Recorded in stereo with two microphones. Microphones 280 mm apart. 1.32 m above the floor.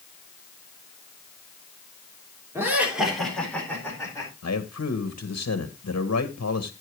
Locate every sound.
2.5 s laughter: 10° right (ahead or behind), 3.5 m; by 4.3 s 10° left (ahead or behind), 5 m
4.4 s a man speaking: 60° left (ahead or behind), 1.3 m